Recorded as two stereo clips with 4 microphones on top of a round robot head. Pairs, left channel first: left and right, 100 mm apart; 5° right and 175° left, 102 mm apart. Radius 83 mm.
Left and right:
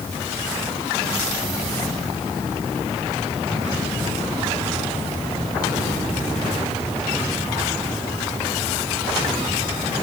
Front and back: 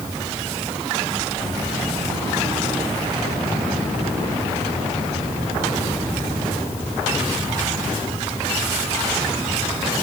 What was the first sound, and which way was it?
Only background noise.